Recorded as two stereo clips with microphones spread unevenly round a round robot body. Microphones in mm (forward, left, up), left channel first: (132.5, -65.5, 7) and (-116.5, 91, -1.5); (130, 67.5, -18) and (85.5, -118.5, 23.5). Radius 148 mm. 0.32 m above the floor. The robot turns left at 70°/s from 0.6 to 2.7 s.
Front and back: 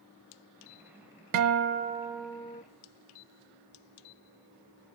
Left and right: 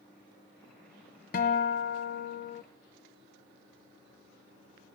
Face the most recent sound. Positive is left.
turn(degrees=25)